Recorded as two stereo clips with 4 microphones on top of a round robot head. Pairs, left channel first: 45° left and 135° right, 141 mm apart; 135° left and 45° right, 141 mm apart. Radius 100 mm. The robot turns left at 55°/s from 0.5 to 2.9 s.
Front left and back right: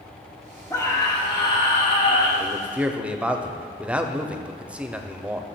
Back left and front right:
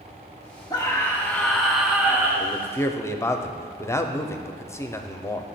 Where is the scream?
100° left, 1.6 m; by 2.3 s 10° left, 1.6 m.